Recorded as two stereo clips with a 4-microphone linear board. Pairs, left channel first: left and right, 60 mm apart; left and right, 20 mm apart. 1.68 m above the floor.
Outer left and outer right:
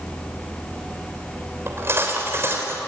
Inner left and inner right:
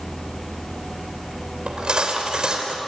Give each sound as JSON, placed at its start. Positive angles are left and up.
{"t": 1.7, "sound": "cutlery clinking", "side_deg": -45, "distance_m": 4.0}